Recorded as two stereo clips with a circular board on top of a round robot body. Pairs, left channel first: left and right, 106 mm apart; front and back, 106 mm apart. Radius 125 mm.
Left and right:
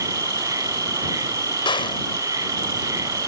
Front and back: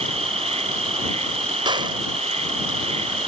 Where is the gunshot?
135° left.